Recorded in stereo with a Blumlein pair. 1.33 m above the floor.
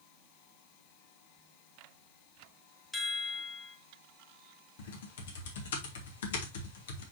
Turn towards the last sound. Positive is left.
turn(degrees=60)